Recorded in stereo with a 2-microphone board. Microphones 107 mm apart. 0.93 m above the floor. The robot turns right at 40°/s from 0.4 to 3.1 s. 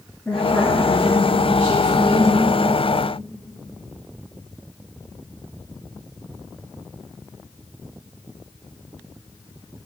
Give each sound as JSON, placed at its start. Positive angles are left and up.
{"t": 0.2, "sound": "a woman speaking", "azimuth_deg": 160, "distance_m": 1.8}